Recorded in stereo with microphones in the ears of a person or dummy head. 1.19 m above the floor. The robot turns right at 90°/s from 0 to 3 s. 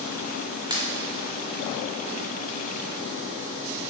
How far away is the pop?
About 1.0 m.